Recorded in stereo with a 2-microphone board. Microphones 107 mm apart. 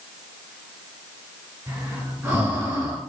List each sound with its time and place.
1.7 s breathing: 20° right (ahead or behind), 3 m